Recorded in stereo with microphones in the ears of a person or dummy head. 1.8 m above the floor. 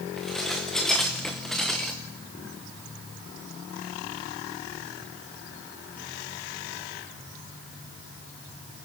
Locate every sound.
0.2 s dishes clattering: centre (ahead or behind), 0.9 m